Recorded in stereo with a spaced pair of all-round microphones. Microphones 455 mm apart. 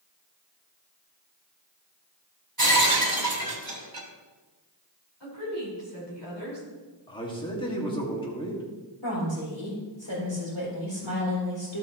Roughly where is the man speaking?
Centre.